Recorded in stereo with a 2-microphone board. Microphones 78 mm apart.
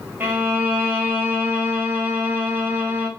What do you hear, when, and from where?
0.2 s a violin: 25° right (ahead or behind), 0.7 m